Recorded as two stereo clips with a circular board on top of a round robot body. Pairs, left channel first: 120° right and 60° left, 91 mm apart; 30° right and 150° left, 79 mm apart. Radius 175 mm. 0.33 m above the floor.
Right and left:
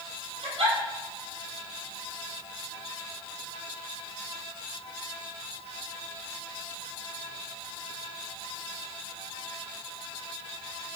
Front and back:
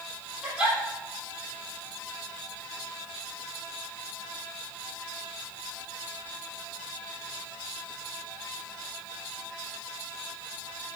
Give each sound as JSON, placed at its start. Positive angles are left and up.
{"t": 0.4, "sound": "a giggle", "azimuth_deg": 75, "distance_m": 4.0}